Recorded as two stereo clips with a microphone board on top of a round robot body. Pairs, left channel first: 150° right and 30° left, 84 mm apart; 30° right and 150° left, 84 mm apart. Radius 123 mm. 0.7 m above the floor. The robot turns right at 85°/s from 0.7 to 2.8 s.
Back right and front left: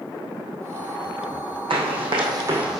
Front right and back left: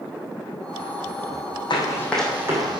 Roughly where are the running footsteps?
Ahead.